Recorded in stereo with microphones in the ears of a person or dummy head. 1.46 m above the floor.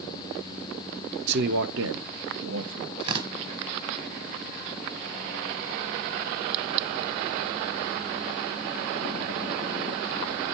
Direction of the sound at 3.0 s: 30° right (ahead or behind).